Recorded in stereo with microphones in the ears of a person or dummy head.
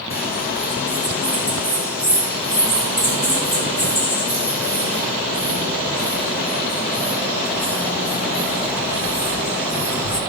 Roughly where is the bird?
Left.